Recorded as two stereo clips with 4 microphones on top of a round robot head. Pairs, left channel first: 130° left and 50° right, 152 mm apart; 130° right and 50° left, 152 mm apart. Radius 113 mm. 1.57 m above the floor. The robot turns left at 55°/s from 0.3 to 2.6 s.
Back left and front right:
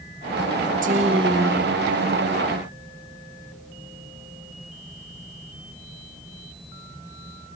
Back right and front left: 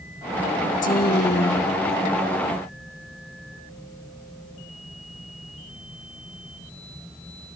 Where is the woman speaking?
90° right, 1.1 m; by 2.1 s 160° right, 1.1 m.